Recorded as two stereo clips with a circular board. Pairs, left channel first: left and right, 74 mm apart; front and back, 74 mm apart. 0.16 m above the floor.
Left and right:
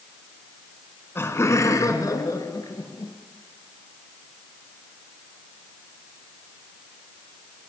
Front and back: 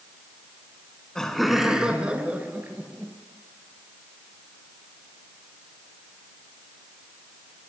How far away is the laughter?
About 1.2 m.